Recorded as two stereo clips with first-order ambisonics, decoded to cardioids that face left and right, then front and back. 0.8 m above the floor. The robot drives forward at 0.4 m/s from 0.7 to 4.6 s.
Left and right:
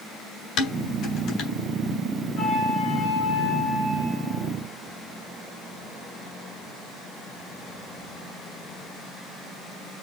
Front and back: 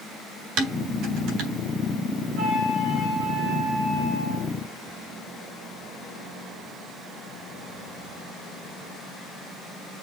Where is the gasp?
No gasp in this recording.